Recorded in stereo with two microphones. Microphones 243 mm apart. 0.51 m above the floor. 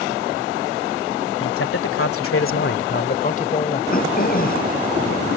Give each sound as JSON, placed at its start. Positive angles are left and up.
{"t": 1.4, "sound": "a man speaking", "side_deg": 60}
{"t": 3.9, "sound": "throat clearing", "side_deg": 35}